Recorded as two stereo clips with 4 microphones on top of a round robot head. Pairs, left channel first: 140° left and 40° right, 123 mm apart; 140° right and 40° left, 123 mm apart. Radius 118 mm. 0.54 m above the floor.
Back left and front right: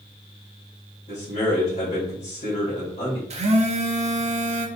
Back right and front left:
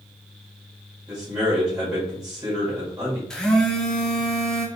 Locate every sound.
1.1 s a man speaking: 110° left, 2 m
3.3 s a phone buzzing: 55° right, 0.9 m